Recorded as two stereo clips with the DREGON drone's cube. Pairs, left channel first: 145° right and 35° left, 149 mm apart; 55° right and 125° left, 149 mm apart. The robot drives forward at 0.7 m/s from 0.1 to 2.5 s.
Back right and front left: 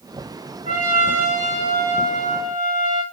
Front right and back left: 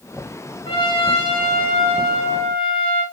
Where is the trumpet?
Straight ahead, 6.5 m.